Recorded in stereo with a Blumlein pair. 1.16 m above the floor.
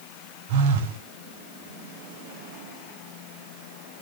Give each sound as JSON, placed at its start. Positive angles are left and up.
{"t": 0.5, "sound": "a phone buzzing", "azimuth_deg": -50, "distance_m": 0.7}